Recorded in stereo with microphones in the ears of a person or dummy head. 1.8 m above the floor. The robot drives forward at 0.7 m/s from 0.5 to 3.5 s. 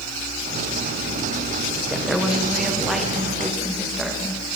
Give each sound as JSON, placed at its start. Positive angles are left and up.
{"t": 1.9, "sound": "a woman speaking", "side_deg": 0, "distance_m": 1.1}